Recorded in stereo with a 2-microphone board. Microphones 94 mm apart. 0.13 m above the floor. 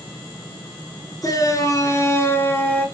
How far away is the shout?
About 2.5 m.